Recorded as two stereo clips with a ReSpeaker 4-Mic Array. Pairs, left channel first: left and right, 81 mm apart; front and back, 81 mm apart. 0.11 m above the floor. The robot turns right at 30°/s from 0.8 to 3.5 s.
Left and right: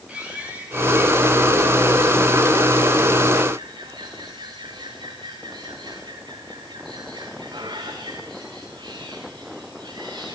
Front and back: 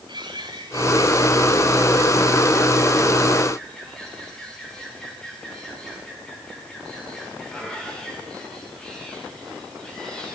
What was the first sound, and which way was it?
A bird, 165° right.